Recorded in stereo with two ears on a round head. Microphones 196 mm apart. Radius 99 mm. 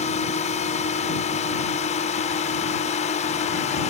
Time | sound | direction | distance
0.0 | a drone | 35° left (ahead or behind) | ?